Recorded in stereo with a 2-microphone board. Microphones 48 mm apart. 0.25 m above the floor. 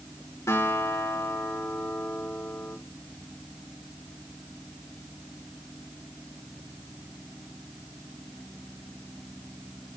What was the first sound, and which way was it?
A guitar, 85° left.